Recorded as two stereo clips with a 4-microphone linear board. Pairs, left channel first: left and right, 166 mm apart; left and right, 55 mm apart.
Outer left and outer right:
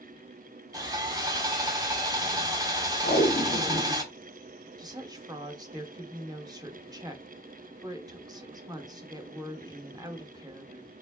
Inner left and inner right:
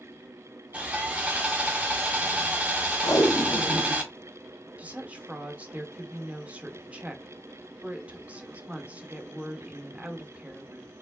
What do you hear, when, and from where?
0.7 s sawing: 25° right (ahead or behind), 1.2 m
3.0 s tape being pulled: 80° left, 1.3 m
4.8 s a woman speaking: 25° right (ahead or behind), 1.0 m